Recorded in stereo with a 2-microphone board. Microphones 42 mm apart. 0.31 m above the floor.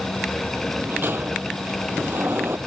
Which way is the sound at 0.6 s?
60° right (ahead or behind).